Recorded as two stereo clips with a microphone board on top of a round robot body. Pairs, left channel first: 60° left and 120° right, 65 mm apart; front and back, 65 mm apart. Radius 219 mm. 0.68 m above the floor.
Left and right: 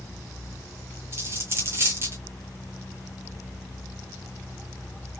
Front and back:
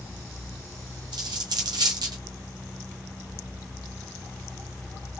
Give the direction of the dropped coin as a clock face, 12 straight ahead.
6 o'clock.